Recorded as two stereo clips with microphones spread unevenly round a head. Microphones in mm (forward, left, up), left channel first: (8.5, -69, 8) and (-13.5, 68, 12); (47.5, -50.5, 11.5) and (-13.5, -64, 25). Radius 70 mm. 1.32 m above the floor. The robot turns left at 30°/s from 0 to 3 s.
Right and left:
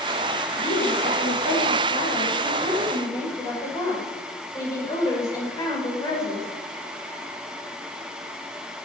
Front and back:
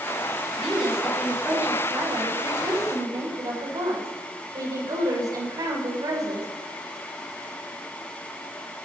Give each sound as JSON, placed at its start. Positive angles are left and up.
{"t": 0.6, "sound": "a woman speaking", "azimuth_deg": -70, "distance_m": 6.0}